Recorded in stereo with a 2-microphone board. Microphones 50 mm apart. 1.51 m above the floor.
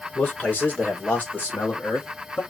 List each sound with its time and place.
0.1 s a man speaking: 30° left (ahead or behind), 1.9 m; by 2.4 s 35° left (ahead or behind), 3 m